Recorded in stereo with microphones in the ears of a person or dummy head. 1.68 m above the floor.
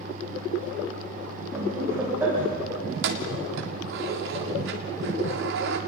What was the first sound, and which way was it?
Laughter, 10° right (ahead or behind).